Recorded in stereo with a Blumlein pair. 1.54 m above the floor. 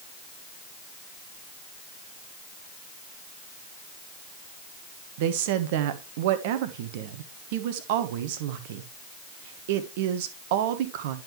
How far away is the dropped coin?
No dropped coin in this recording.